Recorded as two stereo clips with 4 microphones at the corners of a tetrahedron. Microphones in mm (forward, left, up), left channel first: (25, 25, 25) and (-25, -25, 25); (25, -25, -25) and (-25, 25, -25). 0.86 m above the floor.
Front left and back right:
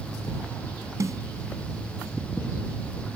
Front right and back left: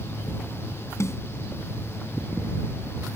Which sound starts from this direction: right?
A snare drum, at 1.0 s.